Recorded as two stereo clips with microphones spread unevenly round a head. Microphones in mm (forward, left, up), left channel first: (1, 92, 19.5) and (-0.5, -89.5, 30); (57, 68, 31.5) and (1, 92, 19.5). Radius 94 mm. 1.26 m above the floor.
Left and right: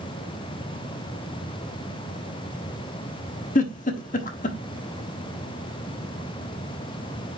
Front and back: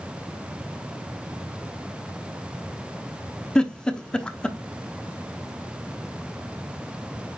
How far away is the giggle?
About 1.1 m.